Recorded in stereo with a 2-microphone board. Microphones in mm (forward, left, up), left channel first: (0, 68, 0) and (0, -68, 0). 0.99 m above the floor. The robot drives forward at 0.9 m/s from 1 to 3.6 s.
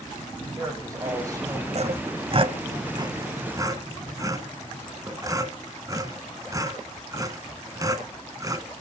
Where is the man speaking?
25° right (ahead or behind), 7 m.